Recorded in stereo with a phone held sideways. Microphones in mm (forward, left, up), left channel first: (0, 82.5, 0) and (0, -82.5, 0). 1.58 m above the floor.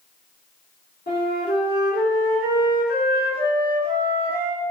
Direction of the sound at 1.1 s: 75° left (ahead or behind).